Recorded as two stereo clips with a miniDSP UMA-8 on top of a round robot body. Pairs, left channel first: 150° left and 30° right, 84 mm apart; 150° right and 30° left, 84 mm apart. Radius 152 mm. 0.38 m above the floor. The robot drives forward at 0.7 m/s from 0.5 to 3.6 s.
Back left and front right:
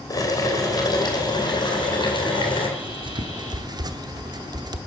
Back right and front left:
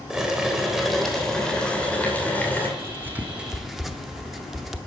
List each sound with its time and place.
0.1 s boiling: 110° left, 2.5 m; by 2.7 s 140° left, 3 m
2.8 s writing: 30° right, 1.2 m; by 4.8 s 60° right, 0.8 m